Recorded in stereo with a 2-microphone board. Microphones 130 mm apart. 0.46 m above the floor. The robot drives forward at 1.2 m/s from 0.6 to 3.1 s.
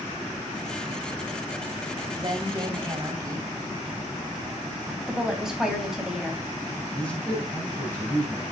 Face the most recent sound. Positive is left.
turn(degrees=10)  # may be behind; listen again after turning